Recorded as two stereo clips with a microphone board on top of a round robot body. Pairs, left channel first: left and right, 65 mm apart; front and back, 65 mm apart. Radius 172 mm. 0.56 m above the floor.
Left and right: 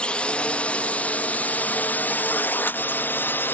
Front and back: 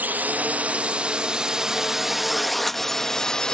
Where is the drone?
150° left; by 3.5 s 70° left.